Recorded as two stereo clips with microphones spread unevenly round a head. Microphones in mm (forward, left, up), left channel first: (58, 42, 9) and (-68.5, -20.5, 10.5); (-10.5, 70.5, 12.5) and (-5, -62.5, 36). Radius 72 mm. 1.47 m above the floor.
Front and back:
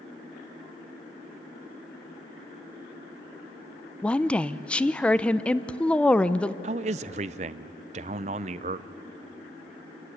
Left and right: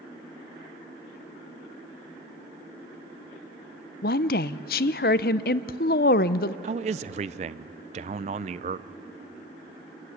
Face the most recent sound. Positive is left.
turn(degrees=-115)